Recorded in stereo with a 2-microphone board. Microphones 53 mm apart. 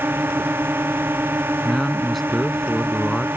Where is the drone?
40° right (ahead or behind).